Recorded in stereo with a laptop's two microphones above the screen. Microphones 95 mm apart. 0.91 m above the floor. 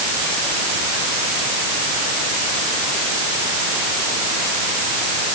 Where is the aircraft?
I don't hear an aircraft.